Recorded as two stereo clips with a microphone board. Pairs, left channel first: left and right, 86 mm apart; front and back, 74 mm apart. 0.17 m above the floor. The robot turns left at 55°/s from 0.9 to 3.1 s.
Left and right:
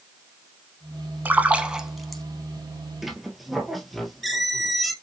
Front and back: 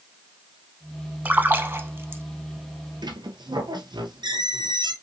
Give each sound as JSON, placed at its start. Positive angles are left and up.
{"t": 1.2, "sound": "a splash", "azimuth_deg": -135, "distance_m": 0.6}
{"t": 3.0, "sound": "a squeak", "azimuth_deg": -175, "distance_m": 0.8}